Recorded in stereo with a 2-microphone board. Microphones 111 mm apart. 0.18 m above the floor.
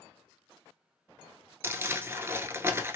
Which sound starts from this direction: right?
Crumpling, at 1.6 s.